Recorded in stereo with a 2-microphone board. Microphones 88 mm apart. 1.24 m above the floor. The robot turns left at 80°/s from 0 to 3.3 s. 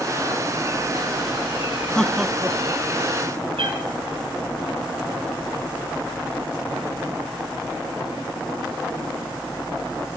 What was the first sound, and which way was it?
Laughter, 10° left (ahead or behind).